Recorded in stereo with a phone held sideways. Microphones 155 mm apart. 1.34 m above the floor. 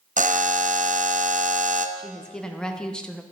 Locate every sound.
0.2 s a buzzer: 55° right (ahead or behind), 0.5 m
2.0 s a woman speaking: 5° left (ahead or behind), 0.8 m